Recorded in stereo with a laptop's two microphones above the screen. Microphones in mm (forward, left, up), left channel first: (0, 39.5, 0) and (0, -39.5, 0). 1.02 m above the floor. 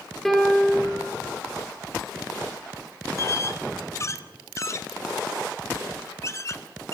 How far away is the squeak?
About 1.1 m.